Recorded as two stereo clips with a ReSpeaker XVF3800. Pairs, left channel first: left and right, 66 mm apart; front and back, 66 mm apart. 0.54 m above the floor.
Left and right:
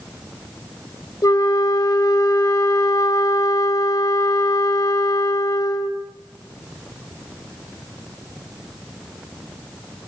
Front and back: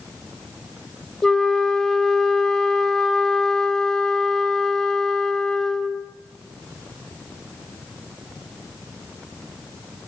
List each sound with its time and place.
1.2 s a flute: 80° left, 2 m